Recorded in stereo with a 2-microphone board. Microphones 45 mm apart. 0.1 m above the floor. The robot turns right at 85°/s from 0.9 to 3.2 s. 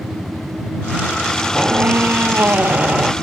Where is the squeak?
155° right; by 3.1 s 20° right.